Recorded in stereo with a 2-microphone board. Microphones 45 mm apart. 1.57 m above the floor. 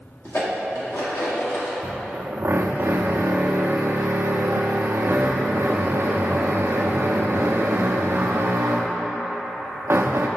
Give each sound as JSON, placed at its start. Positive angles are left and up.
{"t": 0.2, "sound": "dishes clattering", "side_deg": 65, "distance_m": 1.8}
{"t": 1.8, "sound": "a drill", "side_deg": -50, "distance_m": 0.5}